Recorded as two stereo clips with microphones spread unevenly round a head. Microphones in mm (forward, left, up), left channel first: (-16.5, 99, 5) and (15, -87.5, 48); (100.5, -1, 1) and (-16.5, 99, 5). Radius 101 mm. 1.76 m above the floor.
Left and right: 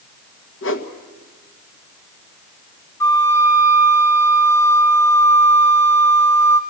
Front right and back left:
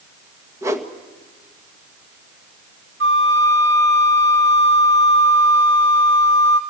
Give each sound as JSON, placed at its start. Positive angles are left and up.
{"t": 0.6, "sound": "a whoosh", "azimuth_deg": 70, "distance_m": 1.9}
{"t": 3.0, "sound": "a flute", "azimuth_deg": 180, "distance_m": 1.5}